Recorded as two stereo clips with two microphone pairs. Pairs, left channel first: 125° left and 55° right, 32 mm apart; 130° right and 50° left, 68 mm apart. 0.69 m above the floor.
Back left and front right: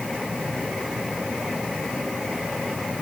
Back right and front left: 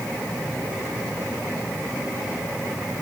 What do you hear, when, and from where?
Only background noise.